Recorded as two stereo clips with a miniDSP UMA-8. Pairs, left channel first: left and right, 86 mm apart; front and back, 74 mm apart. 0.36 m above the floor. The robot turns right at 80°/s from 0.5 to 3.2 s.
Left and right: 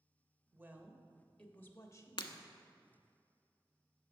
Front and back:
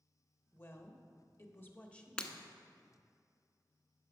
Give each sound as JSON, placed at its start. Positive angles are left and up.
{"t": 0.5, "sound": "a woman speaking", "azimuth_deg": -50, "distance_m": 1.0}
{"t": 2.2, "sound": "breaking glass", "azimuth_deg": 75, "distance_m": 0.7}